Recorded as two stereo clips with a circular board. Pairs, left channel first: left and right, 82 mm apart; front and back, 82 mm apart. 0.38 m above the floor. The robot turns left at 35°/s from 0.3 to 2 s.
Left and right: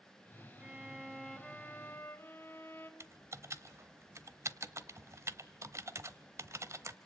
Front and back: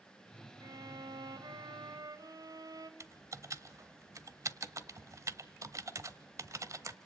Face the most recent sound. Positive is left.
turn(degrees=-140)